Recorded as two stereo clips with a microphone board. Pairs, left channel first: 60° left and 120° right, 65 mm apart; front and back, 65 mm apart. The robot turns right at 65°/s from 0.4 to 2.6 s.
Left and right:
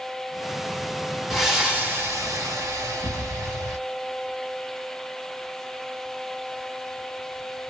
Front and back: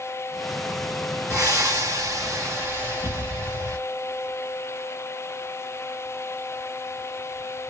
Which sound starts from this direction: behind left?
Breathing, at 1.3 s.